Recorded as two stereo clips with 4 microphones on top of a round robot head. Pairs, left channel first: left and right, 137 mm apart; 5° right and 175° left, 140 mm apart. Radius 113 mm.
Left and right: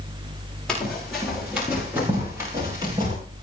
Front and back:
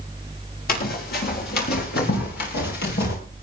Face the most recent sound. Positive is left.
turn(degrees=-25)